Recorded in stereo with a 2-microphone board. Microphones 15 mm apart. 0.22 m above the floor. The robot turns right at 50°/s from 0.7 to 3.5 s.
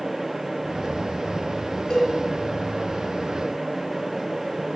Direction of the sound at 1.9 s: 55° left (ahead or behind).